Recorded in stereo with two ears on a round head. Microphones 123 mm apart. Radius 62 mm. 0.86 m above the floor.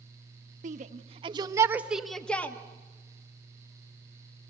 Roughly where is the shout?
Right.